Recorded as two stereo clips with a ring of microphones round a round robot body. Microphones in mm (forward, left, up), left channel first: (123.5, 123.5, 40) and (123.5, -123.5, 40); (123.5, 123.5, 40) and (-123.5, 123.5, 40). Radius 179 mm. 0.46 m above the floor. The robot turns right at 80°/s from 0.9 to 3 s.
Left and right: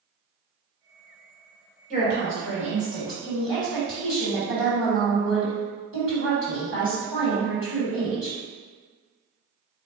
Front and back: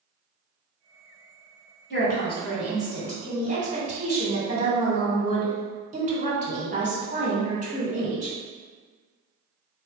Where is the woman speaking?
35° left, 1.8 m; by 8.4 s 120° left, 1.8 m.